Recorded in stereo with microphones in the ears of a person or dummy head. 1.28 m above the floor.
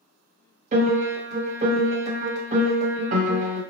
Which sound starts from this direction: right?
A piano, at 0.7 s.